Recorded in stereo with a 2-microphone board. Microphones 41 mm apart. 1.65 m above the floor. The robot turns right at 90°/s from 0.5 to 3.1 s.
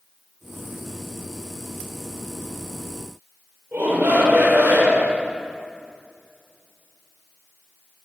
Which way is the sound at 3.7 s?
50° right (ahead or behind).